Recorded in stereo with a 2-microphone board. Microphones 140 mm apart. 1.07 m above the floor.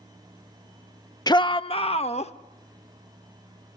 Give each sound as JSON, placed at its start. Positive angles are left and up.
{"t": 1.3, "sound": "a shout", "side_deg": 30, "distance_m": 0.5}